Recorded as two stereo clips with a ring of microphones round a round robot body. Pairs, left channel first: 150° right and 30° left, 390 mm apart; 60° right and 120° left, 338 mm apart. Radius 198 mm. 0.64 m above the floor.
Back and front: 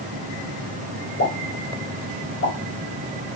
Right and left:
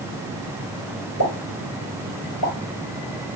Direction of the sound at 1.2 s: 95° right.